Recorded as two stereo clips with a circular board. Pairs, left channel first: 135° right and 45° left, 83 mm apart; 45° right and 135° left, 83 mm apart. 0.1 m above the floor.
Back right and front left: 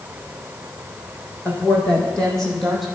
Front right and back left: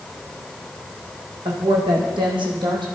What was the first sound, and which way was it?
A woman speaking, 155° left.